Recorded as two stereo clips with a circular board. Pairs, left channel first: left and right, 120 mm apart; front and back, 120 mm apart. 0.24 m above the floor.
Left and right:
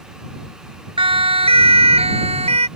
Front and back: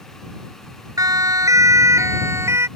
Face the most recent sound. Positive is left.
turn(degrees=-115)